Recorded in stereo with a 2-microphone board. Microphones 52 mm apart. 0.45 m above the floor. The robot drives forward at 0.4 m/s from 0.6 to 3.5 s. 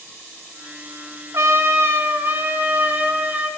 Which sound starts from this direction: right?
A trumpet, at 1.3 s.